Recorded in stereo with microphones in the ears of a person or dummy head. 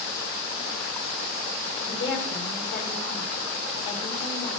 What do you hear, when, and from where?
1.8 s a woman speaking: 60° left (ahead or behind), 3.5 m